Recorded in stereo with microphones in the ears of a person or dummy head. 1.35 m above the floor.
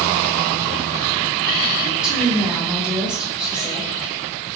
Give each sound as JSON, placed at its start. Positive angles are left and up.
{"t": 1.8, "sound": "a woman speaking", "side_deg": 0, "distance_m": 1.8}